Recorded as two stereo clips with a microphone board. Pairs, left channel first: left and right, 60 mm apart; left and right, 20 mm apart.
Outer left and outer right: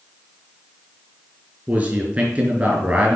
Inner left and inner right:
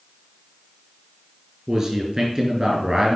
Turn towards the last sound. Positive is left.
turn(degrees=-20)  # may be behind; listen again after turning